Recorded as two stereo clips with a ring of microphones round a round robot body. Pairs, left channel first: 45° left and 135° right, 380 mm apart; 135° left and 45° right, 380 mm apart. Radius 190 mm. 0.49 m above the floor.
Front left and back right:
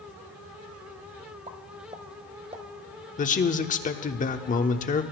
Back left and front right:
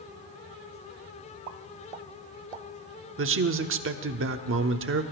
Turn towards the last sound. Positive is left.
turn(degrees=-10)